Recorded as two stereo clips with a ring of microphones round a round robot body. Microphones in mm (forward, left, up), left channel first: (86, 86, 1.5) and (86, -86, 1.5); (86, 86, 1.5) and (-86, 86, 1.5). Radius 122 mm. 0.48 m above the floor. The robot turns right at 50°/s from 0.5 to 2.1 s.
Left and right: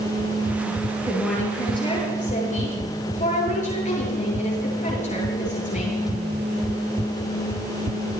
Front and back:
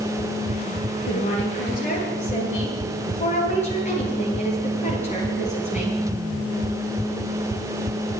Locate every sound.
1.1 s a woman speaking: 5° right, 9.5 m; by 6.0 s 45° left, 9.5 m